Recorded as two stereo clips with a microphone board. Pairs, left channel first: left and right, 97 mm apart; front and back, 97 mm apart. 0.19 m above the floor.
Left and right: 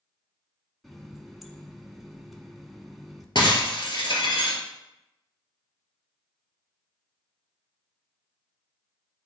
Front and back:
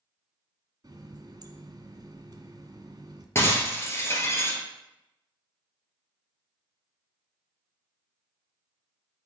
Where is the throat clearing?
I don't hear throat clearing.